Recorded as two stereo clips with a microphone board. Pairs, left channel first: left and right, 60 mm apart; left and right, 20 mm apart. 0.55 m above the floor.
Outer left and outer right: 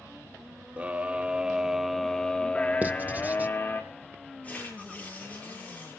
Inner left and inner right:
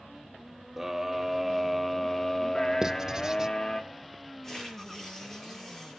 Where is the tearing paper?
20° left (ahead or behind), 8 m.